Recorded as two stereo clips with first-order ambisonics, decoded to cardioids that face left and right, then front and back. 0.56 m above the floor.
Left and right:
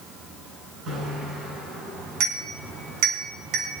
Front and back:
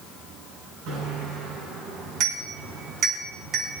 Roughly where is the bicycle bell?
Behind right.